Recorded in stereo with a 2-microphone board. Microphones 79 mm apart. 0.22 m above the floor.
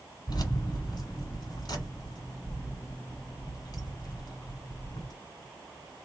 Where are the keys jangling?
55° left (ahead or behind), 1.5 m.